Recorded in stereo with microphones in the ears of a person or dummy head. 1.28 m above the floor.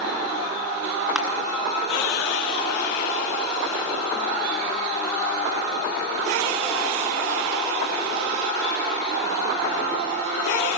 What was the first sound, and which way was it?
Crushing, 5° right (ahead or behind).